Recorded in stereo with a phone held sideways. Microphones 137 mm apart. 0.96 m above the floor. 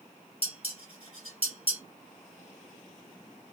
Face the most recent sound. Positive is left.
turn(degrees=45)  # may be behind; listen again after turning